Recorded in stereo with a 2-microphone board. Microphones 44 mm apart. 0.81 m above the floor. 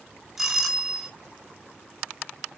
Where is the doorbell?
10° right (ahead or behind), 5.5 m.